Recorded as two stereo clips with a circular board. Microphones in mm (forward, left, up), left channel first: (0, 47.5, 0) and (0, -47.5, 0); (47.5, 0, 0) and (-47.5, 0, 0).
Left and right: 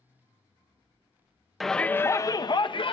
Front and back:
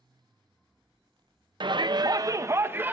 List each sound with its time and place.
1.6 s a shout: straight behind, 0.6 m; by 2.9 s 110° left, 0.9 m